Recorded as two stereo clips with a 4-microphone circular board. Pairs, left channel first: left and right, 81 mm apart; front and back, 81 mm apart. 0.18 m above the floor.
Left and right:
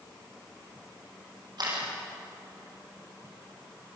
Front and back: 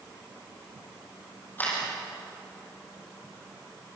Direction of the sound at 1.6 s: 65° right.